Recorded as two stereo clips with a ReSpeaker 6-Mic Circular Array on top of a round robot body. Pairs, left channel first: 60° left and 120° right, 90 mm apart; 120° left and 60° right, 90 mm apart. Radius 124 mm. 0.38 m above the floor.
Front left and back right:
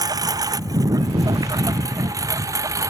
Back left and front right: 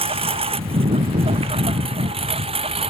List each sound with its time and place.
0.0 s a lawn mower: 70° right; by 2.9 s 65° right